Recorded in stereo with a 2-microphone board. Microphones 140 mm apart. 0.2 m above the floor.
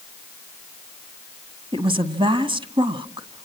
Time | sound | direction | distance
1.7 | a woman speaking | 35° right (ahead or behind) | 1.6 m